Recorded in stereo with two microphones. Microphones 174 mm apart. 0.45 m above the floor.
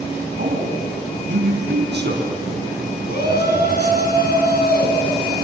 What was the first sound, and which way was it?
A man speaking, 75° right (ahead or behind).